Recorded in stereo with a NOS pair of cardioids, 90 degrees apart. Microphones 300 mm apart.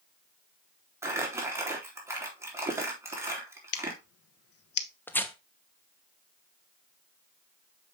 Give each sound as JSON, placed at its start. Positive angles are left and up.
{"t": 1.0, "sound": "crumpling", "azimuth_deg": -10, "distance_m": 3.0}
{"t": 3.7, "sound": "scissors", "azimuth_deg": 60, "distance_m": 1.2}
{"t": 5.1, "sound": "tearing paper", "azimuth_deg": 5, "distance_m": 1.1}